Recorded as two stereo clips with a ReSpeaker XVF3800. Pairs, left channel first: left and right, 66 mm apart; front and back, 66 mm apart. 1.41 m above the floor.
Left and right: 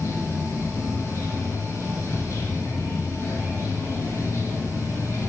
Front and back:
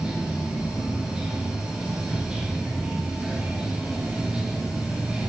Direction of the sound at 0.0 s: 100° left.